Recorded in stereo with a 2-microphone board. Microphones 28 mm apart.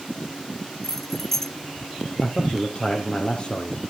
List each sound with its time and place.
0.8 s keys jangling: 15° left (ahead or behind), 0.8 m
2.2 s a man speaking: 40° left (ahead or behind), 2.5 m